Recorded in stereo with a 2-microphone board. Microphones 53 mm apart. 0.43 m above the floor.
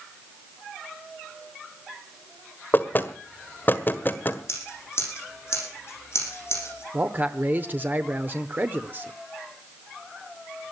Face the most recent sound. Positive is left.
turn(degrees=-35)  # may be behind; listen again after turning